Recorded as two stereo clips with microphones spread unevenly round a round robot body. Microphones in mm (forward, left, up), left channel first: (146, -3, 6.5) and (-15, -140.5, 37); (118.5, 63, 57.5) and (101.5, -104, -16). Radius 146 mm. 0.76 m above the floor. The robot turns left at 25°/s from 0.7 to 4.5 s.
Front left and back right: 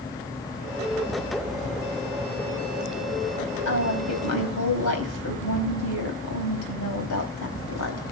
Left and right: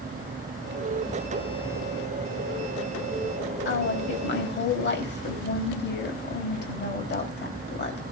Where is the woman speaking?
85° left, 4 m; by 8.1 s 65° left, 4 m.